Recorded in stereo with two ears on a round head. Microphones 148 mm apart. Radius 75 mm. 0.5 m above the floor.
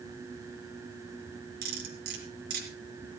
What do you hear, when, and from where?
1.6 s cutlery clinking: 65° right (ahead or behind), 4 m